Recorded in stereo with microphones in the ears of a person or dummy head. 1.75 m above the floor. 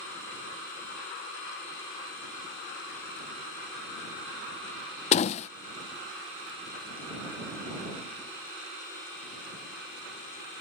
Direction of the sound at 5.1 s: 35° left (ahead or behind).